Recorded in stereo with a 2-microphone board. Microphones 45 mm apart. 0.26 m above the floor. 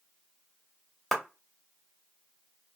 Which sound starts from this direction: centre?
A clap, at 1.1 s.